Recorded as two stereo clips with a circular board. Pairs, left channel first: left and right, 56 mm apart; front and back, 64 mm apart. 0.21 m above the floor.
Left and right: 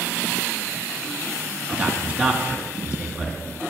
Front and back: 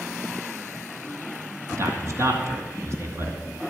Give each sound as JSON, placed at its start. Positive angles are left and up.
{"t": 1.7, "sound": "a man speaking", "azimuth_deg": -155, "distance_m": 2.5}